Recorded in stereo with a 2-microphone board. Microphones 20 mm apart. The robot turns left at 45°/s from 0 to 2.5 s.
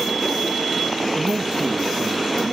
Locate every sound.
1.1 s a man speaking: 55° right, 1.4 m; by 2.5 s 115° right, 1.4 m